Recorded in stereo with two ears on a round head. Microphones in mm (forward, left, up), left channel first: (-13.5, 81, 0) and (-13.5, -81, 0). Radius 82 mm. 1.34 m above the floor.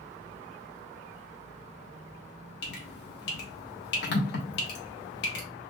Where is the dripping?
65° left (ahead or behind), 1.3 m.